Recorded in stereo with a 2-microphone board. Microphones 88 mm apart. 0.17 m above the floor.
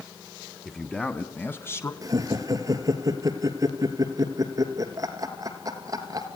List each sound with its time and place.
0.7 s a man speaking: 10° left (ahead or behind), 1.7 m; by 1.9 s 30° left (ahead or behind), 1.5 m
2.0 s laughter: 40° right (ahead or behind), 3 m